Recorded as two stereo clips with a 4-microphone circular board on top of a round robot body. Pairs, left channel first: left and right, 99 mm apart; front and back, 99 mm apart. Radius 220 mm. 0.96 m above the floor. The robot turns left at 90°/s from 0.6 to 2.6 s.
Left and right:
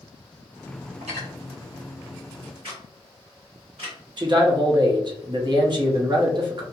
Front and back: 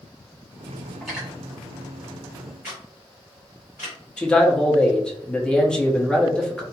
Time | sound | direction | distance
1.0 | cutlery clinking | 80° right | 1.0 m
2.6 | a camera shutter | 110° right | 0.7 m
4.2 | a man speaking | 80° right | 0.9 m